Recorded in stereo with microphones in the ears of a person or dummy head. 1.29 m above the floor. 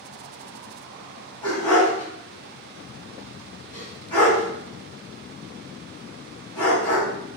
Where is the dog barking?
15° left (ahead or behind), 2.0 m.